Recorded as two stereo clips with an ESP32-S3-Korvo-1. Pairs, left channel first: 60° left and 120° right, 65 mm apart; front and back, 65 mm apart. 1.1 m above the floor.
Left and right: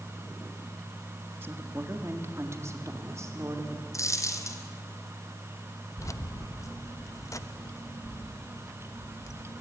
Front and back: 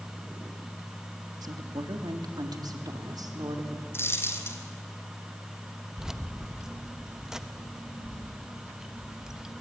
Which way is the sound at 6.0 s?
100° left.